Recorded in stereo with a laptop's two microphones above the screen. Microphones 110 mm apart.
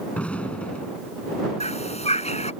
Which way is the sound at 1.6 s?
75° left (ahead or behind).